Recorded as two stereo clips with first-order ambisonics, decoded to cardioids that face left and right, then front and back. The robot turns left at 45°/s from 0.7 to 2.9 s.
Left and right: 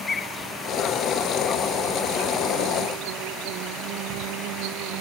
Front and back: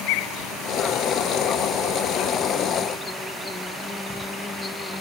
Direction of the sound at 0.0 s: 20° left.